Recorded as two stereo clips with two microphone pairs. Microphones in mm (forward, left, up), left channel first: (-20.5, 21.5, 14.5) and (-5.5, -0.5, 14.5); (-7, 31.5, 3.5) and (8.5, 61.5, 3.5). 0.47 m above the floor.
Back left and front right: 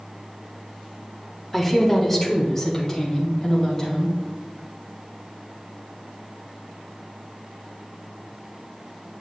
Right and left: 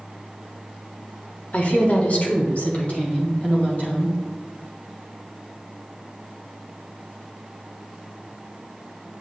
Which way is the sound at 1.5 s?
155° right.